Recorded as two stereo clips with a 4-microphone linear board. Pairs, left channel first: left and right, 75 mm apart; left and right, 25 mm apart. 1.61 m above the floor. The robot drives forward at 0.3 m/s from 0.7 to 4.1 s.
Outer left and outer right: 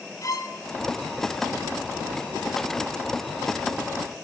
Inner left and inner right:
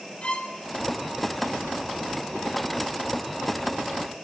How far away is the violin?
About 2 m.